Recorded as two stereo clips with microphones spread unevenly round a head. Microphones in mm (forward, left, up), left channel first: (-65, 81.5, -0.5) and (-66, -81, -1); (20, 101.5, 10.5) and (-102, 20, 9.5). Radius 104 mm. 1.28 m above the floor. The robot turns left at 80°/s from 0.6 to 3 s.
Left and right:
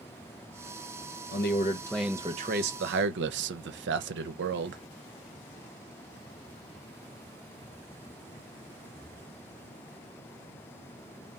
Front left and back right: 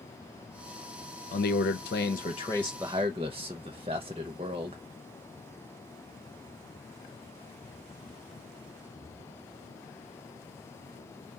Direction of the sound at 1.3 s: 55° left.